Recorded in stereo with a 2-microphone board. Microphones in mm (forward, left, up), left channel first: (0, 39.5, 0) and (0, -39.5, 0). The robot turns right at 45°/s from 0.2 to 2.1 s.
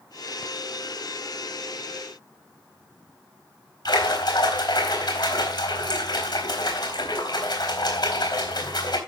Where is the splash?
60° left (ahead or behind), 4 m.